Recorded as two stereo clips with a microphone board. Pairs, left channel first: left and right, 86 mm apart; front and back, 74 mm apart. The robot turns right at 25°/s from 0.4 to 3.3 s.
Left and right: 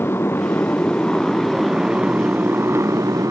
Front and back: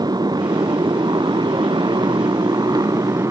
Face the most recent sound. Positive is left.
turn(degrees=-140)